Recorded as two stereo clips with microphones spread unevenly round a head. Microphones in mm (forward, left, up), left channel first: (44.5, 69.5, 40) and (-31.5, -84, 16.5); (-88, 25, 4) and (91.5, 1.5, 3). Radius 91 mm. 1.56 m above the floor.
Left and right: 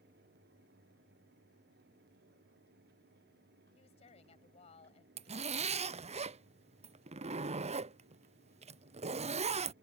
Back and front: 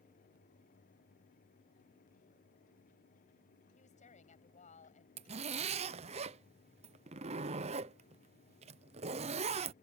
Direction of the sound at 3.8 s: 120° left.